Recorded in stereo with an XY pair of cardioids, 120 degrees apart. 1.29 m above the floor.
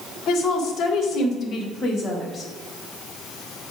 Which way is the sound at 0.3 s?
70° left.